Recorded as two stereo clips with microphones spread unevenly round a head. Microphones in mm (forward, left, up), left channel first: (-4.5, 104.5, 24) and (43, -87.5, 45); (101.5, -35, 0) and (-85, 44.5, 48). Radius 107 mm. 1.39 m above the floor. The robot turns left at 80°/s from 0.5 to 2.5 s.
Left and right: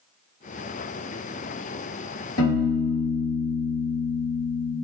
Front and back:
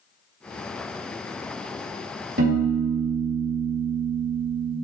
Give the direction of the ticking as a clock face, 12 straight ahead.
No ticking in this recording.